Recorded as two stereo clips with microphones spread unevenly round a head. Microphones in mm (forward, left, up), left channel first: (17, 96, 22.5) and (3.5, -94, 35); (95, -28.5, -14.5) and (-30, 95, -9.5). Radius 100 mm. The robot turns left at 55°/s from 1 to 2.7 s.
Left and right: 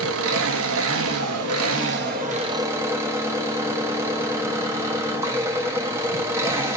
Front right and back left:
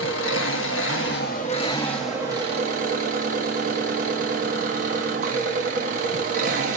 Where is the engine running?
80° right, 1.3 m; by 6.8 s 170° right, 1.3 m.